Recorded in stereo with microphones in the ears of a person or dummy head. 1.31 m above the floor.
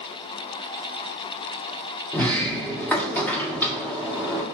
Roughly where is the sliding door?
Centre.